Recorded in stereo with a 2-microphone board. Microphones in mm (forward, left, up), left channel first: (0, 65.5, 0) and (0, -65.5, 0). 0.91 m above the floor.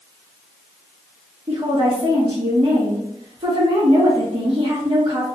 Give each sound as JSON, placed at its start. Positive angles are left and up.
{"t": 1.5, "sound": "a woman speaking", "side_deg": -45, "distance_m": 0.9}